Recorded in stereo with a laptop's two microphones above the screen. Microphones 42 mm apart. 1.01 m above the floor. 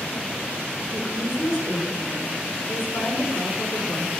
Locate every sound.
0.9 s a woman speaking: 80° left, 3.5 m